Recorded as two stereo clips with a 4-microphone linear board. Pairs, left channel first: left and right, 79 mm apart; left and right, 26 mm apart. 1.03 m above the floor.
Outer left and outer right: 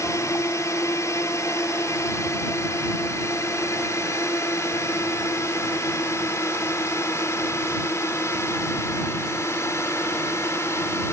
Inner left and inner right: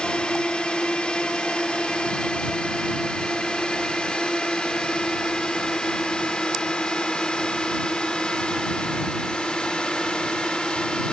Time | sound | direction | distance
0.0 | a drone | 40° left (ahead or behind) | ?